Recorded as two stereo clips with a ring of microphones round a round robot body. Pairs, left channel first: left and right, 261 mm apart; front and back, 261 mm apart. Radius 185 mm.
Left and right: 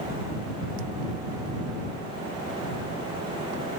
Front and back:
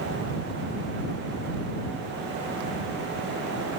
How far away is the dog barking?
I don't hear a dog barking.